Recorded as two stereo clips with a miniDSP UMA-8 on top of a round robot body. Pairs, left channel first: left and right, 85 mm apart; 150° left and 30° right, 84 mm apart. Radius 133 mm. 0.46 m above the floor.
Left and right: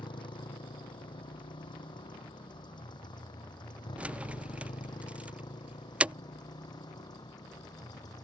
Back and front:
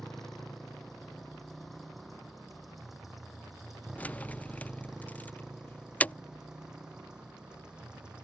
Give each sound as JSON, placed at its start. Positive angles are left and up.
{"t": 0.0, "sound": "a motorcycle", "azimuth_deg": 65}
{"t": 4.0, "sound": "keys jangling", "azimuth_deg": -150}